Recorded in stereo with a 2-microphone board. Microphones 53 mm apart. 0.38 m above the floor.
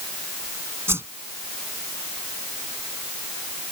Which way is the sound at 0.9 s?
55° right (ahead or behind).